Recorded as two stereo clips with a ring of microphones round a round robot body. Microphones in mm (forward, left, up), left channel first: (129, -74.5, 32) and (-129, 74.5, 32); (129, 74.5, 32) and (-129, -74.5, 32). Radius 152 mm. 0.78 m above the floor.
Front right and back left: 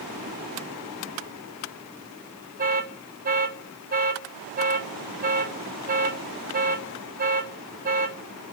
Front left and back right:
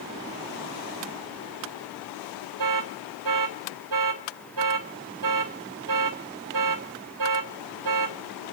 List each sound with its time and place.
2.6 s an alarm: 150° right, 3 m